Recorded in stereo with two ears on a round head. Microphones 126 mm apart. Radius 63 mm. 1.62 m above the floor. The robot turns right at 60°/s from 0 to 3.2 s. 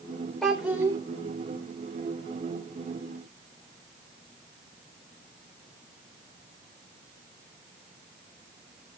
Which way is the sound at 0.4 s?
175° left.